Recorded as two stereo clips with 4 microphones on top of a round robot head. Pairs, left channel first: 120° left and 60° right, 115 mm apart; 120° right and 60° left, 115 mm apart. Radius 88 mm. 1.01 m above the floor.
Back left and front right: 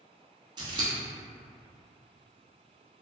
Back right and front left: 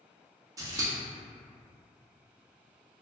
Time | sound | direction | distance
0.6 | scissors | 5° right | 0.6 m